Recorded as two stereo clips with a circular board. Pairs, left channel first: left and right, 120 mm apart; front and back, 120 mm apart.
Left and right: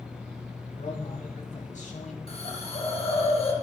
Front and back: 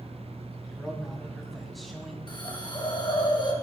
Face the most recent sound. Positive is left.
turn(degrees=55)